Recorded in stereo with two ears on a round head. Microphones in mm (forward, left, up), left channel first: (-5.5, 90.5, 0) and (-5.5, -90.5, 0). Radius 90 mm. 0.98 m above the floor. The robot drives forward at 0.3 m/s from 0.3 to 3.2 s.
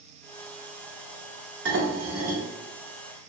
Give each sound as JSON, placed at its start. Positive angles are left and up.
{"t": 1.6, "sound": "dishes clattering", "side_deg": -65, "distance_m": 1.4}